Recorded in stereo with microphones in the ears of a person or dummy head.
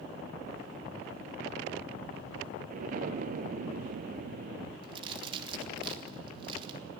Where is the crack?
30° right (ahead or behind), 2.5 m.